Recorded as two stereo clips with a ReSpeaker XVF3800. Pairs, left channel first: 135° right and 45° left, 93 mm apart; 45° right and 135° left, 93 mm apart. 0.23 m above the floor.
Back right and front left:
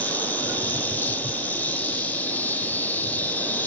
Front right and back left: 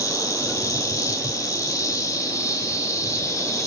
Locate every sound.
0.0 s an insect: 70° right, 2 m